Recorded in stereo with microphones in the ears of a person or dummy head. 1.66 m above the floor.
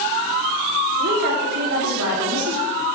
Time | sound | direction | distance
1.0 | a woman speaking | 50° right (ahead or behind) | 3 m